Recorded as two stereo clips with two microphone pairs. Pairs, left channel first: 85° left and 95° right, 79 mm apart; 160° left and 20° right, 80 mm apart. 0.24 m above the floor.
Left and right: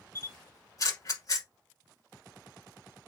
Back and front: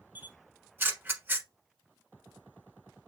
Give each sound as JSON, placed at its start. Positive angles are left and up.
{"t": 0.1, "sound": "a camera shutter", "azimuth_deg": 40, "distance_m": 1.1}